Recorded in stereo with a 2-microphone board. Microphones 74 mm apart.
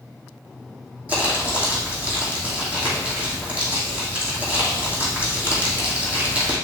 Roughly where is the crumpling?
Centre.